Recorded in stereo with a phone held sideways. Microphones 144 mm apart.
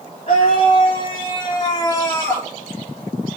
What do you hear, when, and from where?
0.3 s a scream: 50° left (ahead or behind), 3 m; by 2.5 s 15° left (ahead or behind), 3.5 m